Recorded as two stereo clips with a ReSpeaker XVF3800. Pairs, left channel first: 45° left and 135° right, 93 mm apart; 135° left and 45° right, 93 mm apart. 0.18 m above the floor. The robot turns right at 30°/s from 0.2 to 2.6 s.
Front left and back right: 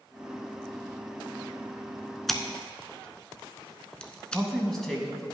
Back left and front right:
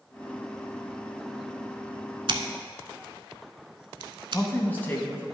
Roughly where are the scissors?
Ahead right.